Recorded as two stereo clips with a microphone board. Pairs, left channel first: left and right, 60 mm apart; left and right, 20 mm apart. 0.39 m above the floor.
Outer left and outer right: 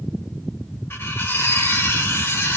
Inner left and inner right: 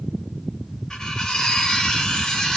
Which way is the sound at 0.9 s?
40° left (ahead or behind).